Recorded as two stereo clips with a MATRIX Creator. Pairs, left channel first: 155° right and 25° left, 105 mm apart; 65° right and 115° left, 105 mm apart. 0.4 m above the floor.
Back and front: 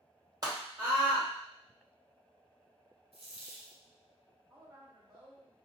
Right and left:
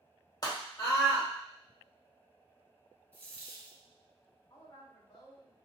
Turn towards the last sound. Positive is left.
turn(degrees=-30)